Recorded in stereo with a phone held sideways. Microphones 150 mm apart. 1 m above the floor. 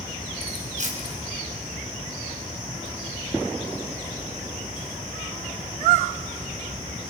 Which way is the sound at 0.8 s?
55° right (ahead or behind).